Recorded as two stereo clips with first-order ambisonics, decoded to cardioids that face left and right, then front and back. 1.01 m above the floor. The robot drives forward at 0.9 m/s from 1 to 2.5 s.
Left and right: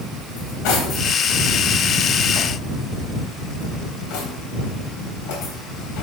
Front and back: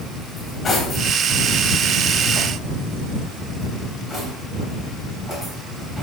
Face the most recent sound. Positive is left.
turn(degrees=100)